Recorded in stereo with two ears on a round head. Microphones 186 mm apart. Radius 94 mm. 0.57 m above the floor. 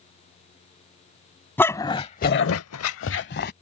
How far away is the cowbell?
No cowbell in this recording.